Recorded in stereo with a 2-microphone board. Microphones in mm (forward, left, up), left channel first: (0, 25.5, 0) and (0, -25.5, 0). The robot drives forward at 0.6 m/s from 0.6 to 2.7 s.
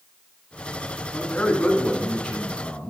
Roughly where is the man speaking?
Left.